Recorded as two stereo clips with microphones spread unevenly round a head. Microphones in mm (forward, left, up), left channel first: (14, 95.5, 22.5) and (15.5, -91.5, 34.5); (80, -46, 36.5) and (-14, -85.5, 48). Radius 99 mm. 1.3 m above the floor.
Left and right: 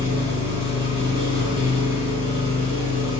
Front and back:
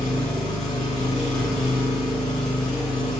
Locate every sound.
0.0 s an engine running: 75° right, 1.1 m